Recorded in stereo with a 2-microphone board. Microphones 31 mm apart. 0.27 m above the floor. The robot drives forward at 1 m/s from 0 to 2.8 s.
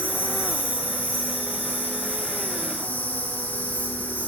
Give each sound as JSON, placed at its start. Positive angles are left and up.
{"t": 0.0, "sound": "an insect", "side_deg": 85, "distance_m": 5.0}